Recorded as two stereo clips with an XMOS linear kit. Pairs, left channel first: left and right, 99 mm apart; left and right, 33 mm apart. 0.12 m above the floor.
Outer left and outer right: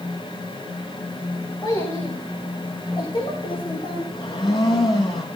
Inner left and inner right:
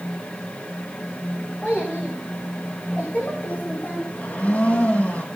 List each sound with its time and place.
1.6 s a child speaking: 40° left (ahead or behind), 6 m; by 4.0 s 65° left (ahead or behind), 5.5 m
4.1 s a blender: 50° left (ahead or behind), 3 m